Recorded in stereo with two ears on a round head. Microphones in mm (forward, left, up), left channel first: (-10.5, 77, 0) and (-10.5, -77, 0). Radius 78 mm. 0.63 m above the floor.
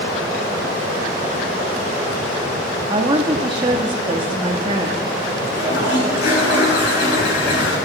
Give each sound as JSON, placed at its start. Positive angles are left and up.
{"t": 2.9, "sound": "a woman speaking", "side_deg": -25, "distance_m": 0.9}
{"t": 5.5, "sound": "a toilet flushing", "side_deg": 70, "distance_m": 7.0}